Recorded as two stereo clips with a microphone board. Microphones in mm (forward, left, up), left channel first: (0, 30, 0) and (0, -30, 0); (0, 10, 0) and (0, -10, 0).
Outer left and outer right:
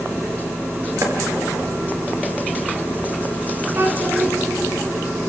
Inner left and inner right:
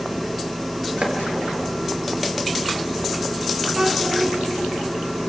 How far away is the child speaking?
About 3.5 m.